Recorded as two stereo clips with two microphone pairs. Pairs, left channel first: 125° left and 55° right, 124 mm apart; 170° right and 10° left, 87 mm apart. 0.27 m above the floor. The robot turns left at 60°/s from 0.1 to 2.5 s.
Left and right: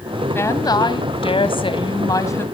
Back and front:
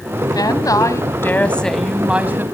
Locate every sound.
0.3 s a woman speaking: 175° right, 1.9 m; by 2.5 s 60° left, 1.9 m